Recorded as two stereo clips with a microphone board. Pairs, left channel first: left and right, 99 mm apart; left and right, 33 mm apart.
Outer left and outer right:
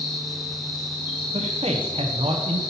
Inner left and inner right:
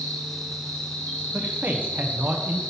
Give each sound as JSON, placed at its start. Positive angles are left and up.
{"t": 0.0, "sound": "an insect", "side_deg": 60, "distance_m": 3.0}
{"t": 1.3, "sound": "a man speaking", "side_deg": -80, "distance_m": 0.9}